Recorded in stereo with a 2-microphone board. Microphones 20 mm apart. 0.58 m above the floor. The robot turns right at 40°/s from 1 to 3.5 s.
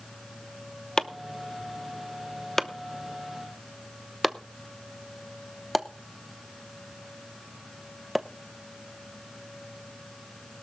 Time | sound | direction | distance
1.0 | chopping | 25° left (ahead or behind) | 0.7 m